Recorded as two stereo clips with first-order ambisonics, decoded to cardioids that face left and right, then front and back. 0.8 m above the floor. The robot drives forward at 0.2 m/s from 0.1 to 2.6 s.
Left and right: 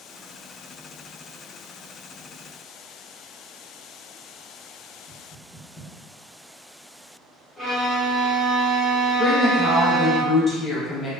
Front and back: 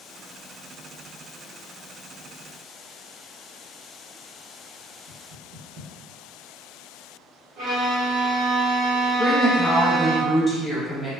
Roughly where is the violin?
Behind.